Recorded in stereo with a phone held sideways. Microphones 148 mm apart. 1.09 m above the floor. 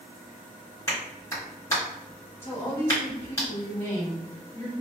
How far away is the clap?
About 1.9 m.